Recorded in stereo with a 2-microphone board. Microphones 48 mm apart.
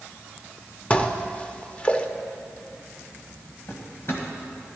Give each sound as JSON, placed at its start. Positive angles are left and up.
{"t": 0.9, "sound": "dishes clattering", "side_deg": 25, "distance_m": 0.6}
{"t": 3.7, "sound": "a drawer", "side_deg": 50, "distance_m": 1.7}